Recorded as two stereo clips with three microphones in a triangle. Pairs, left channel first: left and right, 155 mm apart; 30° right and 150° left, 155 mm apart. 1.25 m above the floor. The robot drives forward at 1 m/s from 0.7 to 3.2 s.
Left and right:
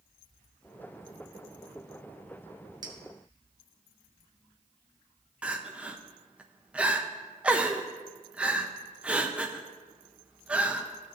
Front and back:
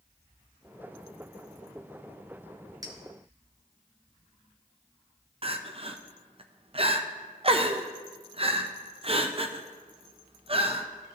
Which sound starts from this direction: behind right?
A clink, at 2.8 s.